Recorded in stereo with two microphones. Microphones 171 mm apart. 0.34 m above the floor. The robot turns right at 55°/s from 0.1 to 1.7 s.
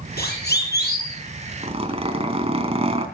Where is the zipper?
40° right (ahead or behind), 3 m; by 3.1 s 35° right (ahead or behind), 3 m.